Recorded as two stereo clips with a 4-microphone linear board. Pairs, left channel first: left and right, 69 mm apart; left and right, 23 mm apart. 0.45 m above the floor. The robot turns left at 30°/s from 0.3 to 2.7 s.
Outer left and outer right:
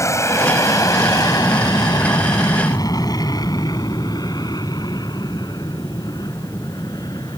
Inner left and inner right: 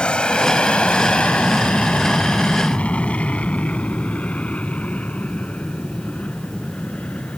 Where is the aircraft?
45° left (ahead or behind); by 7.4 s 75° left (ahead or behind).